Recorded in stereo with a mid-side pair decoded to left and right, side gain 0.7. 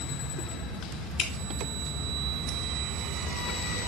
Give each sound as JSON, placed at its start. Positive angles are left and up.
{"t": 1.2, "sound": "dripping", "azimuth_deg": 35, "distance_m": 1.0}